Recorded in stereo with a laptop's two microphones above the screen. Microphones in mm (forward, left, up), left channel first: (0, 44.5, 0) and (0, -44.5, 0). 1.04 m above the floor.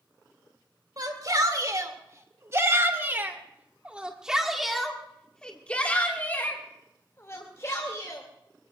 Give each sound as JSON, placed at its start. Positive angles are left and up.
{"t": 1.0, "sound": "a shout", "side_deg": -50, "distance_m": 3.0}